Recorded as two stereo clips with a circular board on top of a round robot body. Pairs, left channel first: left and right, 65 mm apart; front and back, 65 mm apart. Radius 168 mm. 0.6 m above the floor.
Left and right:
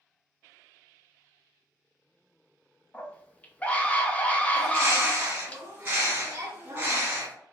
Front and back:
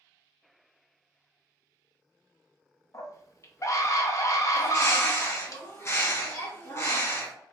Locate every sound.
2.9 s a scream: 25° left, 0.8 m
4.5 s a bird: 40° right, 1.5 m